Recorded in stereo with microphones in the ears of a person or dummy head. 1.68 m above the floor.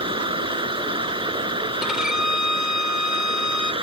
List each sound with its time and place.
0.0 s running water: 35° right (ahead or behind)
1.8 s a violin: 5° left (ahead or behind)